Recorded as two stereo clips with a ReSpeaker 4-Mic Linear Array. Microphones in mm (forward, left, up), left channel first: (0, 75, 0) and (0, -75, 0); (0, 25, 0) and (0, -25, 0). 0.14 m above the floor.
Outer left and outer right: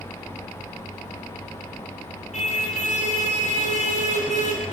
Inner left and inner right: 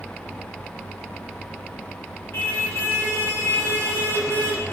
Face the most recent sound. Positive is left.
turn(degrees=50)  # may be behind; listen again after turning